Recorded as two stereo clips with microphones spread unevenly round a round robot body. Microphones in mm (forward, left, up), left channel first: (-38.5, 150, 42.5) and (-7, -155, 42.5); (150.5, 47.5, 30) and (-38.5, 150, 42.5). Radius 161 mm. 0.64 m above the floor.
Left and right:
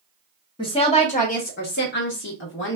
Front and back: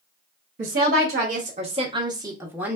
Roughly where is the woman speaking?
Behind.